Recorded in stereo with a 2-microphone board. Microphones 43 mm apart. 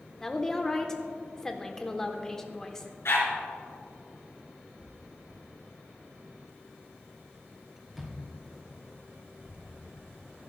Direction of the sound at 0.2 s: 15° left (ahead or behind).